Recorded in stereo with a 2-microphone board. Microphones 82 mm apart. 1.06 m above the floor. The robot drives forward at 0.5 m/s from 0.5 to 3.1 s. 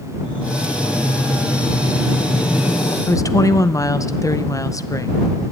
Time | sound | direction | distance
0.2 | breathing | 80° left | 5.5 m
3.1 | a woman speaking | 40° left (ahead or behind) | 0.6 m